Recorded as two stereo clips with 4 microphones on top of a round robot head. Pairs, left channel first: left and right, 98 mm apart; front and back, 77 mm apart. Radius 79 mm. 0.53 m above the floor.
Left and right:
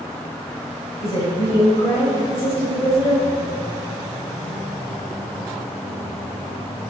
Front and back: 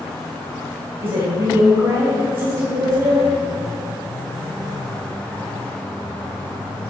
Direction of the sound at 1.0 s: 145° left.